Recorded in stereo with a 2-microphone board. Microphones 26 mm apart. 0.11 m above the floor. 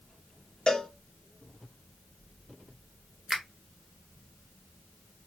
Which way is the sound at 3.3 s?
15° right (ahead or behind).